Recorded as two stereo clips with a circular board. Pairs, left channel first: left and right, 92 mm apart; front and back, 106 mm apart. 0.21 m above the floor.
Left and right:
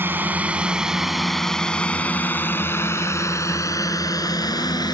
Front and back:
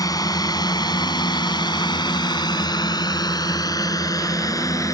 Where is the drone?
35° right; by 4.9 s 55° left.